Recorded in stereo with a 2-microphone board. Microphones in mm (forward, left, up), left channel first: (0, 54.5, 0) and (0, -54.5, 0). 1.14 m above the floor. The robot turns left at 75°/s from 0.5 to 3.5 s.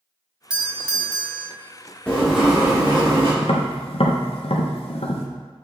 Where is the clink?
No clink in this recording.